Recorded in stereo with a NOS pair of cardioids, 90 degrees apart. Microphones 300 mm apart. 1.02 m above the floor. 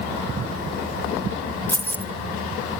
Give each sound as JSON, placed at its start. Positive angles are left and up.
{"t": 1.7, "sound": "keys jangling", "azimuth_deg": 5, "distance_m": 1.1}